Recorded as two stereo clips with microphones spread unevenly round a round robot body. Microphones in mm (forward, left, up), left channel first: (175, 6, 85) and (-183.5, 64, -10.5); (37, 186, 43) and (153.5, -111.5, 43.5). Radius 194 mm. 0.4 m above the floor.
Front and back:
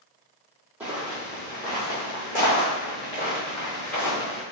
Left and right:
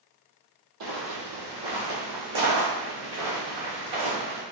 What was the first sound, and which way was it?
Footsteps, 95° right.